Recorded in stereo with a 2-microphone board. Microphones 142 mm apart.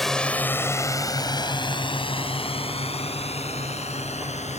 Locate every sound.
0.0 s a drone: centre (ahead or behind); by 4.6 s 50° left (ahead or behind)